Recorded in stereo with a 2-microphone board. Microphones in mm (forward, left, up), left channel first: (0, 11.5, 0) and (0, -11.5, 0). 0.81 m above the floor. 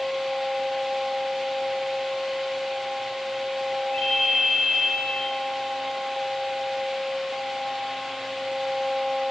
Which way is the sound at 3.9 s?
85° left.